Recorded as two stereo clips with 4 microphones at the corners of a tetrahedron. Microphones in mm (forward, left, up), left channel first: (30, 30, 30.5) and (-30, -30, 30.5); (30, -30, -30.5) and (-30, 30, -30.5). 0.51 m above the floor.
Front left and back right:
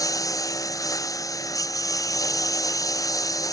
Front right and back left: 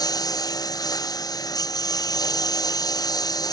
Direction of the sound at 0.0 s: 5° right.